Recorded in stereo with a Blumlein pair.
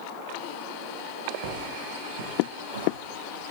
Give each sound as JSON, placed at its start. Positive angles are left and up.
{"t": 1.4, "sound": "footsteps", "azimuth_deg": -50, "distance_m": 4.0}